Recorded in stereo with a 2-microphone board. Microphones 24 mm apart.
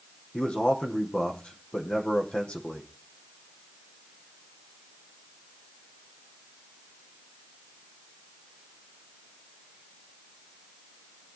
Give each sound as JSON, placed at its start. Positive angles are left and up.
{"t": 0.3, "sound": "a man speaking", "side_deg": 50, "distance_m": 5.0}